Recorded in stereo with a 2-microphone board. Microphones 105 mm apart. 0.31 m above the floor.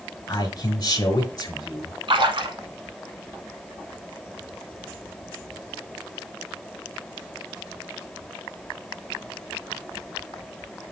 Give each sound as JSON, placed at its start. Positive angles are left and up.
{"t": 0.3, "sound": "a man speaking", "side_deg": 40, "distance_m": 1.7}
{"t": 2.1, "sound": "a splash", "side_deg": -60, "distance_m": 1.0}